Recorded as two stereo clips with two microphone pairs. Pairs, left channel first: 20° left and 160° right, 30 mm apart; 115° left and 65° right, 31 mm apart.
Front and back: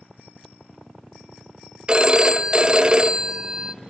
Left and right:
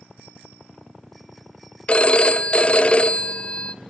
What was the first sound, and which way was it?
A phone ringing, 150° left.